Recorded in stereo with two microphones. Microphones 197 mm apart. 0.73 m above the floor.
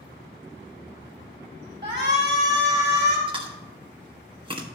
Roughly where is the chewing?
Right.